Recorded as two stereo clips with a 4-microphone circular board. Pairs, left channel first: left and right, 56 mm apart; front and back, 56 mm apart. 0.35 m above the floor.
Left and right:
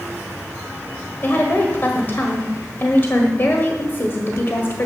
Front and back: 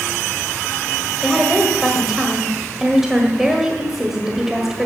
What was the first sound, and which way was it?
A woman speaking, 100° left.